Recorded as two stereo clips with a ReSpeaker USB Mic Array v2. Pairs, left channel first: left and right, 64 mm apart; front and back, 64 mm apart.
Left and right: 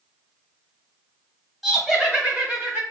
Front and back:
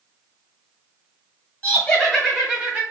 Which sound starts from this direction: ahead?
Laughter, at 1.6 s.